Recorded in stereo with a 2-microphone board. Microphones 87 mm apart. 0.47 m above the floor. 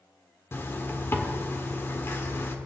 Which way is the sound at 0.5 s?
25° left (ahead or behind).